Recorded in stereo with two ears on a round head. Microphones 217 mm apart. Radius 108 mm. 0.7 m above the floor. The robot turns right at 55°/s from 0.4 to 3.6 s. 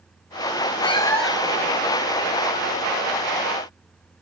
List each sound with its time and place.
0.8 s a cat meowing: 155° left, 0.7 m; by 1.7 s 155° right, 0.7 m